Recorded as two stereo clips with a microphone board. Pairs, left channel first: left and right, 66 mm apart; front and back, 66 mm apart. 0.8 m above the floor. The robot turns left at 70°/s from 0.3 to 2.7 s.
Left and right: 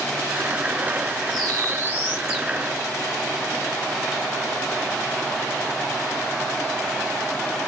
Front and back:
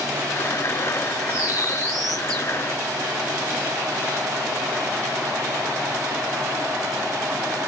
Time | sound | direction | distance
1.3 | a bird | 100° right | 2.0 m